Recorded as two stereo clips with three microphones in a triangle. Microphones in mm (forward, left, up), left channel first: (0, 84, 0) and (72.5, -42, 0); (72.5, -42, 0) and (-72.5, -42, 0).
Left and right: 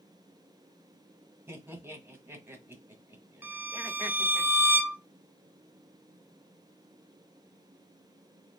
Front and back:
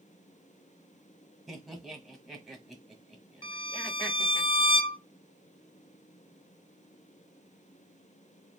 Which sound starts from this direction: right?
Laughter, at 1.5 s.